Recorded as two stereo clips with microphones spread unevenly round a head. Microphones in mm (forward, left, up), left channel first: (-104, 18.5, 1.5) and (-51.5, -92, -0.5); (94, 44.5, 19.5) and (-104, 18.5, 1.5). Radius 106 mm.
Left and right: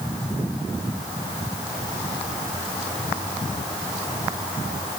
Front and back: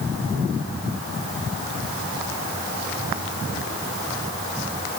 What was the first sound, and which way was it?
Only background noise.